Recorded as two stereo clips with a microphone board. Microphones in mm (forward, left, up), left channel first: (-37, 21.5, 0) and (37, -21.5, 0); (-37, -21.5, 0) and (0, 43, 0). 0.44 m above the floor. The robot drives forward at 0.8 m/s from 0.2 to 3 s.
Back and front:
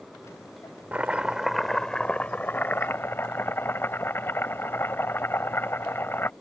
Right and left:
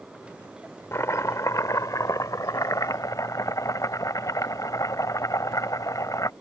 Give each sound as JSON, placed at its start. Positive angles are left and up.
{"t": 0.9, "sound": "chopping", "azimuth_deg": -95}